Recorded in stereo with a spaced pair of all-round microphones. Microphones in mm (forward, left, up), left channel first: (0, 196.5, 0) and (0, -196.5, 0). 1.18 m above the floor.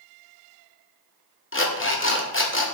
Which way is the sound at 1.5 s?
30° left (ahead or behind).